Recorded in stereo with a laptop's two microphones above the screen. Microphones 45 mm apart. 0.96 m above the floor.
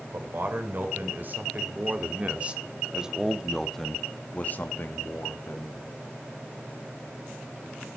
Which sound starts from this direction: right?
A man speaking, at 0.1 s.